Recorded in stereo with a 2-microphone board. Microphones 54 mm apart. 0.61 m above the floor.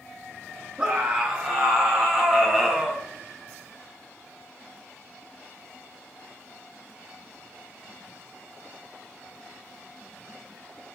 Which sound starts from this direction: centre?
A scream, at 0.8 s.